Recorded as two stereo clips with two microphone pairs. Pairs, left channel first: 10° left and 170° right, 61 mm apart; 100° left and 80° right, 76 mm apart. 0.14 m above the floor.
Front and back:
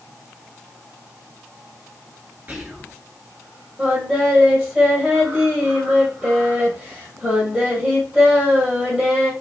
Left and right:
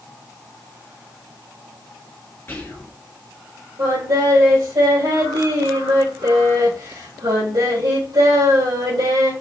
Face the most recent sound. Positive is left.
turn(degrees=-95)